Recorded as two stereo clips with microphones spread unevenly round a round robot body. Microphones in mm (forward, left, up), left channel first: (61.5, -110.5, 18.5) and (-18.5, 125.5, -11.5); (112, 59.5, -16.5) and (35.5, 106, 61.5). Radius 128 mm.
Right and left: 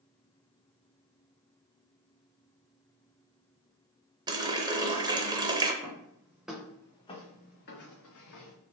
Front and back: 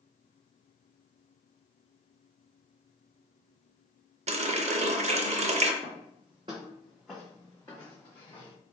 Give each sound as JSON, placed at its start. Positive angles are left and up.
{"t": 4.3, "sound": "a running tap", "azimuth_deg": 135, "distance_m": 0.6}
{"t": 5.8, "sound": "footsteps", "azimuth_deg": 180, "distance_m": 1.9}